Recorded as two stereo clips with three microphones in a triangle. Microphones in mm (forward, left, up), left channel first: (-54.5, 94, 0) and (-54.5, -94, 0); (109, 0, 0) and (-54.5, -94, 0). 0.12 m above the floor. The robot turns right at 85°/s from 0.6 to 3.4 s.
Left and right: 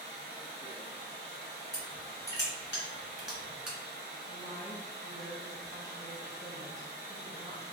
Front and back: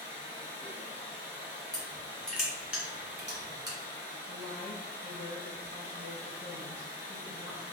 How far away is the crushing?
About 1.7 m.